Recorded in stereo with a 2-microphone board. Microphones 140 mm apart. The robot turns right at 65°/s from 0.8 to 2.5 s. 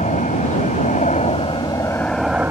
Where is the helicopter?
85° left; by 2.5 s 165° right.